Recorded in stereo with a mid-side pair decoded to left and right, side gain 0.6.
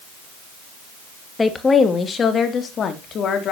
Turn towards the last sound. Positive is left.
turn(degrees=50)